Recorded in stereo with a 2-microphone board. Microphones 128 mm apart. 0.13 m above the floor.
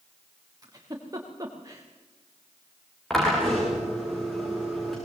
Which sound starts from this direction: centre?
A drill, at 3.1 s.